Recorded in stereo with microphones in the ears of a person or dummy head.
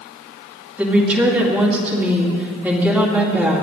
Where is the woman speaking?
10° right (ahead or behind), 2.5 m.